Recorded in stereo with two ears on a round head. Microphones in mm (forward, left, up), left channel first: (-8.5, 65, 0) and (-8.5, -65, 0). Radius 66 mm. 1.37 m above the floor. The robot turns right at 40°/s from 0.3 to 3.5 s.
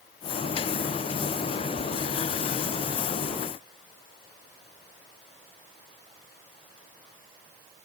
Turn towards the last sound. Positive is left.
No sound to turn to.